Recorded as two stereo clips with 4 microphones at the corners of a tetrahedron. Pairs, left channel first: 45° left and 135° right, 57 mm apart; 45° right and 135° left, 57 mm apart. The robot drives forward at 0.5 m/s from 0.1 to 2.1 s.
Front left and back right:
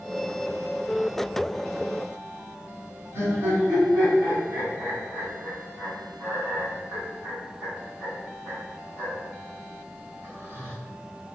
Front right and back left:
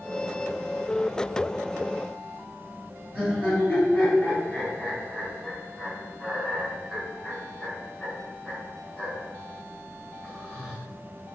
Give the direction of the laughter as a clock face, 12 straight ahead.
6 o'clock.